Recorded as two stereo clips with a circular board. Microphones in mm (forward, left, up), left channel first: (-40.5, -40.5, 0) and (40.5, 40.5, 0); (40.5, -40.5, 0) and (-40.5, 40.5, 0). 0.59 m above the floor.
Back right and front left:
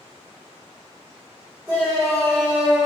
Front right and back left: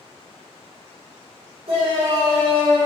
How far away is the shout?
About 3 m.